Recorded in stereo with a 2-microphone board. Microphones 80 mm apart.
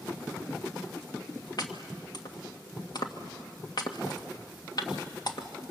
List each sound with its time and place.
1.6 s chopping: 55° left (ahead or behind), 1.7 m